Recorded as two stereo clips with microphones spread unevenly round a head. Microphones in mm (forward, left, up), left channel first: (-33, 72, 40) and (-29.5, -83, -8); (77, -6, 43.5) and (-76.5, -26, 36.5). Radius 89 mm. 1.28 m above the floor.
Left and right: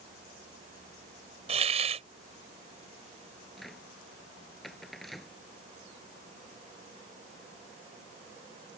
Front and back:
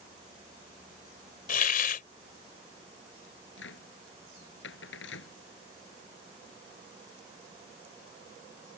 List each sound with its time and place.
1.5 s a hiss: 25° right
3.6 s a cupboard door: 5° left